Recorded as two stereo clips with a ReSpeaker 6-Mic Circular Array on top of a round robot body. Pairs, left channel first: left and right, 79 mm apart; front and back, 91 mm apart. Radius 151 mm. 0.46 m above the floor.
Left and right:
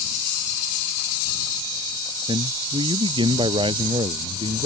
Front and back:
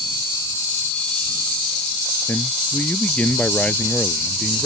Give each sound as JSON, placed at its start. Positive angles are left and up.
{"t": 2.3, "sound": "a man speaking", "azimuth_deg": -70}